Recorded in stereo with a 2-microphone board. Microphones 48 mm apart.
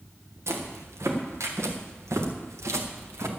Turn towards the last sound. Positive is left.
turn(degrees=-75)  # may be behind; listen again after turning